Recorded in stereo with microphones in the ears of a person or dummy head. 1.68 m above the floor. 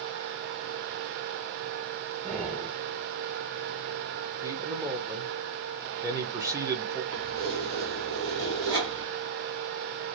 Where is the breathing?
35° right (ahead or behind), 1.8 m.